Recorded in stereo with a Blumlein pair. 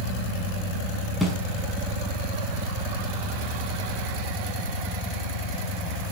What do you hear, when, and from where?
1.2 s a snare drum: 5° left, 6.5 m